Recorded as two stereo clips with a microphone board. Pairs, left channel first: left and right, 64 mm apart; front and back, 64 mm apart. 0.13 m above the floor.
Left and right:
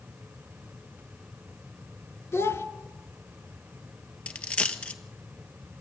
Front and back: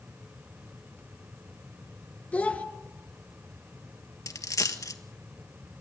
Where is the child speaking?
60° left, 1.8 m.